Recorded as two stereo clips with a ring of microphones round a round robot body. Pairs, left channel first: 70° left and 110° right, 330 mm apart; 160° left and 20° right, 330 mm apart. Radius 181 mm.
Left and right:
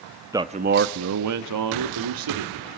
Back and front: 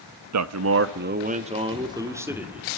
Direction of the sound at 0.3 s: 35° right.